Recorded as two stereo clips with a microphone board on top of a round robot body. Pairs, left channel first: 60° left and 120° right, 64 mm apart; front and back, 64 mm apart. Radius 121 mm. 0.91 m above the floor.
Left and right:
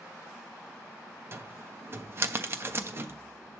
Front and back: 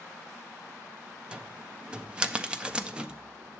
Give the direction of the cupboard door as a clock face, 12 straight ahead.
4 o'clock.